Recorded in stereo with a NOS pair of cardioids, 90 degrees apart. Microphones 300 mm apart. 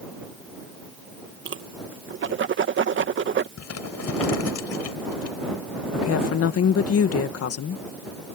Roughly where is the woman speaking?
Ahead left.